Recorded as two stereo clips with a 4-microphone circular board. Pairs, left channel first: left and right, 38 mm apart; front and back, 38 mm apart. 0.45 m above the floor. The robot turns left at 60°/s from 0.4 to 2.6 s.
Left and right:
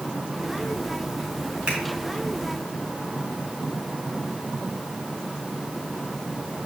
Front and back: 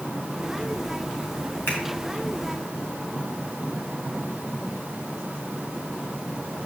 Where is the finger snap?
25° right, 4 m; by 1.8 s 35° right, 4 m.